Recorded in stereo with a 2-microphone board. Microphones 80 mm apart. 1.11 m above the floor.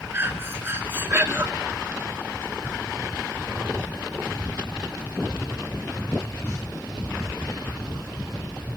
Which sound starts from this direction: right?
Breathing, at 0.1 s.